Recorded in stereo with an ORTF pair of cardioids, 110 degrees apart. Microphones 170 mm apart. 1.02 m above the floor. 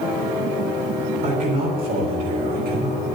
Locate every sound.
1.2 s a man speaking: 55° right, 6 m; by 3.0 s 65° right, 5 m